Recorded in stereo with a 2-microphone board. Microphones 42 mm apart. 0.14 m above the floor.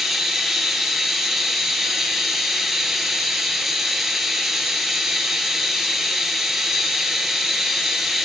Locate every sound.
0.0 s running water: 10° right (ahead or behind), 0.9 m